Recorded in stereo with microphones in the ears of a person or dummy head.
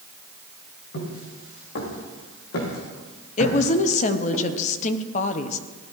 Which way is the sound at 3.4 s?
45° left (ahead or behind).